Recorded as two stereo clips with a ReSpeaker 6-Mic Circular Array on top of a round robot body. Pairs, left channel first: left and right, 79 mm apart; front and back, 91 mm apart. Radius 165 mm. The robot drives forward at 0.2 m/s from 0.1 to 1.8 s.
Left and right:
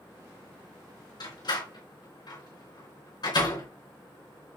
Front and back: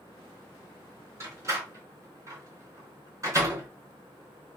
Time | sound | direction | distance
1.2 | a door slam | 120° left | 4.5 m